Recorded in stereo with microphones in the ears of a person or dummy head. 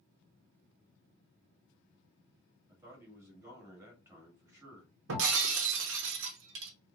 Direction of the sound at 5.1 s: 75° right (ahead or behind).